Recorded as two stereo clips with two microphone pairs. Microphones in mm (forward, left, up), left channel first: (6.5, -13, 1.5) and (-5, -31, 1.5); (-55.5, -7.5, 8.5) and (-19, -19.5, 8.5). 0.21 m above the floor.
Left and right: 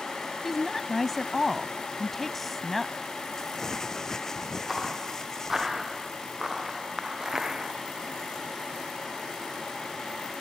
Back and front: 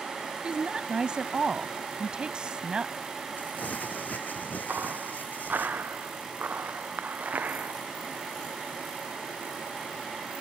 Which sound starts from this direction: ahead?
A woman speaking, at 0.4 s.